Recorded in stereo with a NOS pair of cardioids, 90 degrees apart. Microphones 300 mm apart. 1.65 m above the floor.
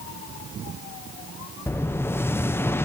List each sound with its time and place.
1.7 s an explosion: 10° left, 0.9 m